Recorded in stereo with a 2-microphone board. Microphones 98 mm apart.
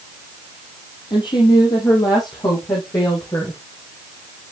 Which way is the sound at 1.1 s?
55° left (ahead or behind).